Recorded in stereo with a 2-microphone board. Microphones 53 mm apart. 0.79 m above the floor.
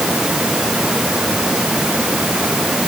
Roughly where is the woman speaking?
No woman speaking in this recording.